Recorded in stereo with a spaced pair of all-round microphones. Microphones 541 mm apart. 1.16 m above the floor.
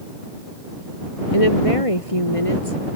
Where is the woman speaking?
80° left.